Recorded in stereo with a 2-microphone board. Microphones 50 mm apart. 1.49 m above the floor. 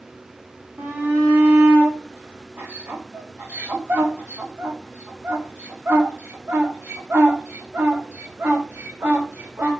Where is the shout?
55° right (ahead or behind), 3 m.